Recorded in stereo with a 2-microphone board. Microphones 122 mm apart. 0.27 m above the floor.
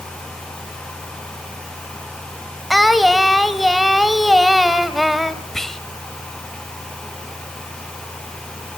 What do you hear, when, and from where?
2.7 s singing: centre (ahead or behind), 1.1 m
5.5 s whispering: 5° left (ahead or behind), 1.1 m